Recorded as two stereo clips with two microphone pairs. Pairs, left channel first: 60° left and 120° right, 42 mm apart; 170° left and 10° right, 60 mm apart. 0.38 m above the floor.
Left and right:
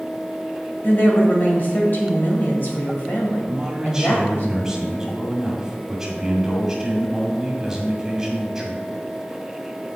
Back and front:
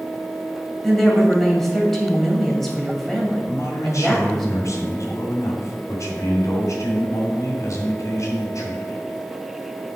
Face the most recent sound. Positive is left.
turn(degrees=165)